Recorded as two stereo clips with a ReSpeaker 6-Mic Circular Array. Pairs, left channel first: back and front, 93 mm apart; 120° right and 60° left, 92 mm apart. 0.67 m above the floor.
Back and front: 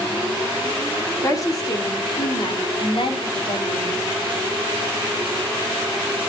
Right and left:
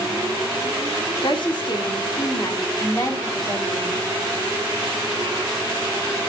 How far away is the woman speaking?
About 2 m.